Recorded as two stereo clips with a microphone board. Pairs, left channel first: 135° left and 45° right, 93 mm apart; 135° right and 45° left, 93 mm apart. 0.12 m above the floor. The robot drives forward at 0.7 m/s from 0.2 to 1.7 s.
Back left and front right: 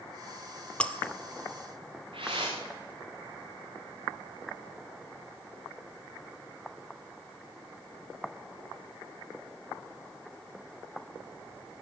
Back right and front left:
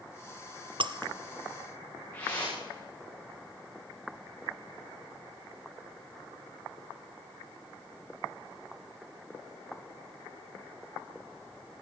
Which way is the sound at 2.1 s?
70° right.